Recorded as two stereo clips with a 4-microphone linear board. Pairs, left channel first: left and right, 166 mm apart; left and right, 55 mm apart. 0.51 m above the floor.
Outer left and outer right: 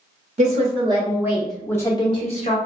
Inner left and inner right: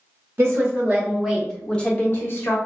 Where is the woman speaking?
45° right (ahead or behind), 0.9 m; by 2.6 s 45° left (ahead or behind), 0.9 m.